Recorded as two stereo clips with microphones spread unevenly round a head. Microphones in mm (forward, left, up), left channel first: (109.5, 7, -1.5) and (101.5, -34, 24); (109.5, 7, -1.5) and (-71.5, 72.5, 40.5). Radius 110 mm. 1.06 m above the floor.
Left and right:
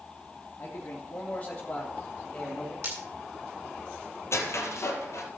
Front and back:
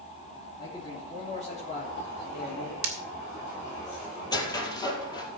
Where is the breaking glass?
165° right, 2 m.